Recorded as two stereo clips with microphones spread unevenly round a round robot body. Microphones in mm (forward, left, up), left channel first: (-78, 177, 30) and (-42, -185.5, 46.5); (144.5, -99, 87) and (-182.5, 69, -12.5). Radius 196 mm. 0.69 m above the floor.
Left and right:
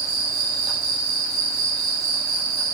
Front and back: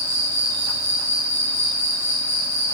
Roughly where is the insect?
Behind.